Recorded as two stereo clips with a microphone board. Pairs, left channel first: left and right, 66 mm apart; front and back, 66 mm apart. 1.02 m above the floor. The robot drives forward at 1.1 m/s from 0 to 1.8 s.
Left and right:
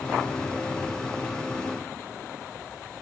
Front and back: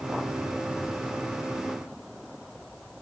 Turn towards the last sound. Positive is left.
No sound to turn to.